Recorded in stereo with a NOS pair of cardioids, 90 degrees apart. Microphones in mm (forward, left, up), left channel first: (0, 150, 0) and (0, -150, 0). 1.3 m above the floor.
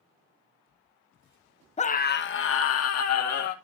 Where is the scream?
20° left, 1.1 m; by 3.5 s 60° left, 2.5 m.